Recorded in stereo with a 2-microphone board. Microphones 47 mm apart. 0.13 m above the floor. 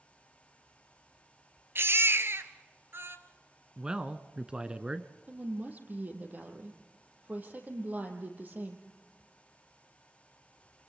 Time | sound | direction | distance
1.8 | a baby crying | 55° right (ahead or behind) | 1.3 m
3.8 | a man speaking | 20° right (ahead or behind) | 1.1 m
5.3 | a woman speaking | 35° right (ahead or behind) | 3.5 m